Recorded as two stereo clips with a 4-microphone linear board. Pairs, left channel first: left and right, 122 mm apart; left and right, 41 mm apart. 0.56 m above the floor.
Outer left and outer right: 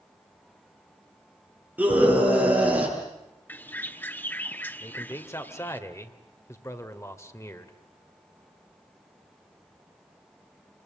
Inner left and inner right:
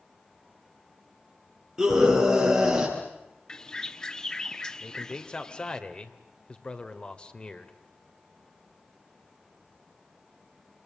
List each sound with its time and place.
1.8 s a scream: 10° right (ahead or behind), 10 m
3.5 s a bird: 15° left (ahead or behind), 0.9 m
4.8 s a man speaking: 25° left (ahead or behind), 2 m